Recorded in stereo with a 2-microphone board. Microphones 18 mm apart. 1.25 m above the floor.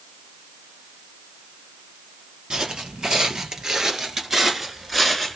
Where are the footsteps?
40° right (ahead or behind), 1.9 m; by 5.4 s centre (ahead or behind), 1.2 m.